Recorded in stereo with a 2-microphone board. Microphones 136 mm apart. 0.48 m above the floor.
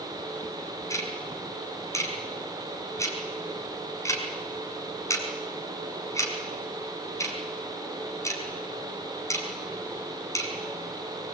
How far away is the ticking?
About 5 m.